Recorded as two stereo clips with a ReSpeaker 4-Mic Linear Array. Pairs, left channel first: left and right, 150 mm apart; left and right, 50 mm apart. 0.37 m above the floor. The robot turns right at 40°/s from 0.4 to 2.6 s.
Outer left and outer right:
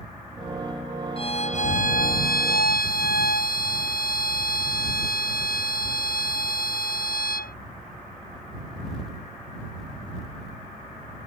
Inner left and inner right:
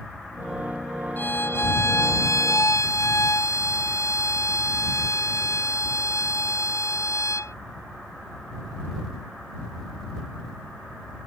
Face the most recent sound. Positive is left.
turn(degrees=95)